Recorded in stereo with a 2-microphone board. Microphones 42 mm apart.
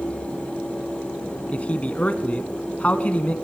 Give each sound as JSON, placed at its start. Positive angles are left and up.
{"t": 1.5, "sound": "a man speaking", "side_deg": 35, "distance_m": 1.4}